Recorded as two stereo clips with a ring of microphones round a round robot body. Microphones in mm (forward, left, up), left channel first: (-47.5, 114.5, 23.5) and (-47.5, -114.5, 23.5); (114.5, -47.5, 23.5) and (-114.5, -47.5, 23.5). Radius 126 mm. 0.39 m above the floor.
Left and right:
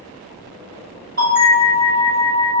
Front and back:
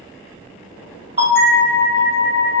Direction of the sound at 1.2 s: 125° right.